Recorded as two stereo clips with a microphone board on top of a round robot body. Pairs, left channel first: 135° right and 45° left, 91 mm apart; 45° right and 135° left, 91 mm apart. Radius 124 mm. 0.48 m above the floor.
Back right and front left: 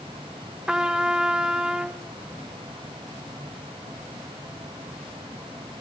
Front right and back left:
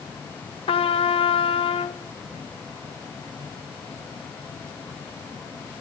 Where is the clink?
I don't hear a clink.